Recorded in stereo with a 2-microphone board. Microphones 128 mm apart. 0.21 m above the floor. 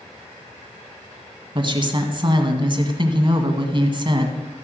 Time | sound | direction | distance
1.6 | a woman speaking | 40° right (ahead or behind) | 1.6 m